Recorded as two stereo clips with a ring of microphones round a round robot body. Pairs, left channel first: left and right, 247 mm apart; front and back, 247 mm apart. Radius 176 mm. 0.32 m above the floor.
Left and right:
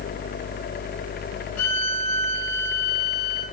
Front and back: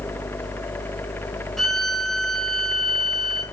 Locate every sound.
1.6 s a violin: 90° left, 3.5 m